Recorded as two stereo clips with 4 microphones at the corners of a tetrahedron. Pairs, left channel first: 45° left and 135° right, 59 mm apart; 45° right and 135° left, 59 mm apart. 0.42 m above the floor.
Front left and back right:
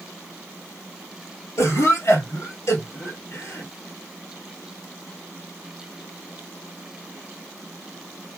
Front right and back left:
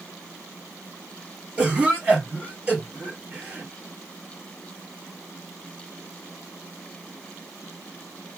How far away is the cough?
About 4 m.